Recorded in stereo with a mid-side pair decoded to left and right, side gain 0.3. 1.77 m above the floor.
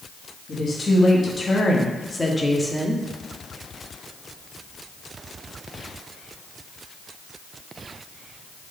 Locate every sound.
0.5 s a woman speaking: 55° left, 1.5 m; by 3.0 s straight ahead, 1.0 m